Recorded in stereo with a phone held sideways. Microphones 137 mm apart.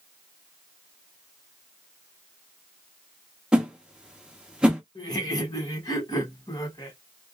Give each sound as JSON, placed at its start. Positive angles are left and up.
{"t": 3.5, "sound": "a whoosh", "side_deg": -5, "distance_m": 0.8}
{"t": 5.0, "sound": "laughter", "side_deg": 30, "distance_m": 1.2}